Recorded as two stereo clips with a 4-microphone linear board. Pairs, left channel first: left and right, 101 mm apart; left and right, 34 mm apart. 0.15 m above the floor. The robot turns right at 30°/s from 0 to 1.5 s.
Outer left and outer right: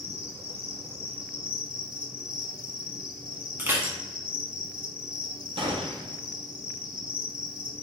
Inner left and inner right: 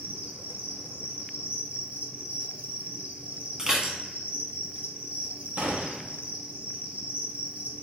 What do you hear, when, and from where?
0.0 s an insect: 100° right, 0.7 m; by 7.8 s 55° right, 0.7 m
3.6 s dishes clattering: 20° right (ahead or behind), 0.8 m
5.6 s a gunshot: 65° right (ahead or behind), 0.8 m